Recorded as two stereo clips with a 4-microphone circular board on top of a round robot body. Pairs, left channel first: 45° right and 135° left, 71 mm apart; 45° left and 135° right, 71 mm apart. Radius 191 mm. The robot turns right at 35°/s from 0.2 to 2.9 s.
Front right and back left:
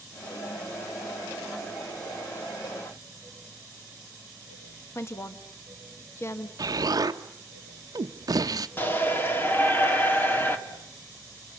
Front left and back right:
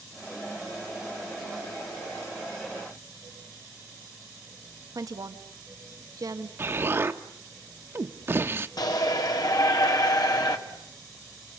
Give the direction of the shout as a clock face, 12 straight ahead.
11 o'clock.